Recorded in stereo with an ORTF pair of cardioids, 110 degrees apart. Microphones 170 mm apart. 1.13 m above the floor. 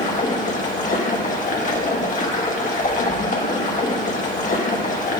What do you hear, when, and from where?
0.0 s running water: 50° left, 1.4 m